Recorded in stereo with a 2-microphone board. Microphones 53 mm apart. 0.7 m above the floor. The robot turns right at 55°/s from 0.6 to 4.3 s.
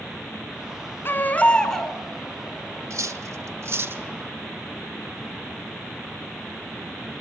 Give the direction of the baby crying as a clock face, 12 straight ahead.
8 o'clock.